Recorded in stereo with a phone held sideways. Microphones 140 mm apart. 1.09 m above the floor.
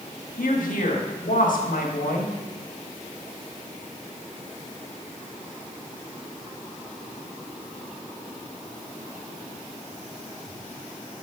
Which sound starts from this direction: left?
A woman speaking, at 0.4 s.